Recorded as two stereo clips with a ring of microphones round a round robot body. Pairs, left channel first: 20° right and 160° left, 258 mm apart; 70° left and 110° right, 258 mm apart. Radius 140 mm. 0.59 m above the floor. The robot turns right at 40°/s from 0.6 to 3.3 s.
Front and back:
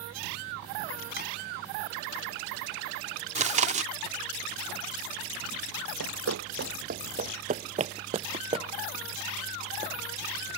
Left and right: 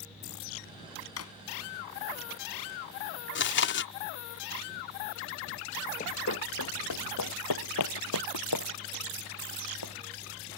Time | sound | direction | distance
1.2 | a drawer | 30° left | ?
3.4 | chewing | 100° left | ?
6.0 | running footsteps | 130° left | ?